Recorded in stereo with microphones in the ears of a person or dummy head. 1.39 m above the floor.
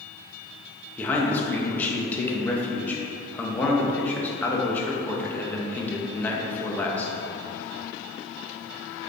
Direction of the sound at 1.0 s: 10° left (ahead or behind).